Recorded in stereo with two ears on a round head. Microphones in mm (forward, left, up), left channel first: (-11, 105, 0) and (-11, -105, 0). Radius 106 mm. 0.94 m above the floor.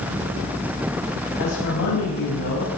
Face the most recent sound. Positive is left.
turn(degrees=80)